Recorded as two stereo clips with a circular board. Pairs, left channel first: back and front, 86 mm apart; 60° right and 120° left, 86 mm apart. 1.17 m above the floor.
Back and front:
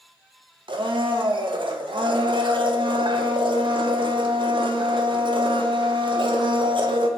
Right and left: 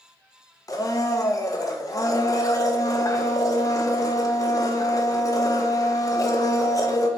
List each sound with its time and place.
0.7 s a blender: 10° right, 0.8 m